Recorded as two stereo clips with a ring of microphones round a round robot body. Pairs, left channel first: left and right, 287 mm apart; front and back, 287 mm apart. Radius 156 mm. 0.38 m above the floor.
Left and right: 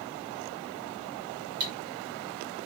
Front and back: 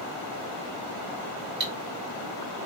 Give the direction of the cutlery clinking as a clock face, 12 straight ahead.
4 o'clock.